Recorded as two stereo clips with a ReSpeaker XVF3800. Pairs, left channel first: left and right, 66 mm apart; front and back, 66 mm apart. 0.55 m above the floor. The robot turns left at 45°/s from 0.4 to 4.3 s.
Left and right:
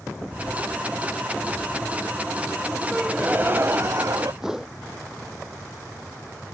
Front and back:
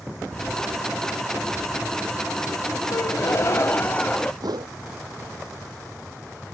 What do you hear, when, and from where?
2.9 s a gasp: 10° right; by 4.3 s 75° right
4.4 s a whoosh: 170° right